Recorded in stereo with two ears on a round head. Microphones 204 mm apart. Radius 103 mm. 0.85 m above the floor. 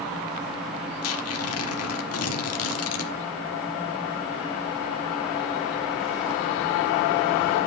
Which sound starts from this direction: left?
Tearing paper, at 1.0 s.